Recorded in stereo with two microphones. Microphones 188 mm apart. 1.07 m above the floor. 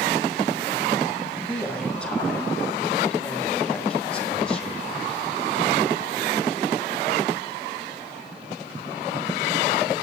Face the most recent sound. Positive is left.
turn(degrees=5)  # may be behind; listen again after turning